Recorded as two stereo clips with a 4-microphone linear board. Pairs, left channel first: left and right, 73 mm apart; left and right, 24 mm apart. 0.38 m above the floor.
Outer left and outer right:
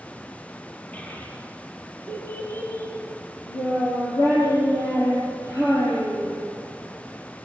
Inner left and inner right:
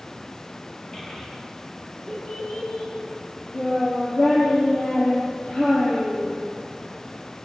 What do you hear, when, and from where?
0.9 s a child speaking: 20° left (ahead or behind), 6.5 m; by 6.4 s 55° left (ahead or behind), 8.5 m